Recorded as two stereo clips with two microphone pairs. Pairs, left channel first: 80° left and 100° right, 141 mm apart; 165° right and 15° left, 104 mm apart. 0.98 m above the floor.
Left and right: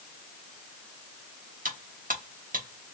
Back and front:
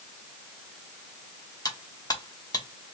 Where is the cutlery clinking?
115° right, 1.1 m.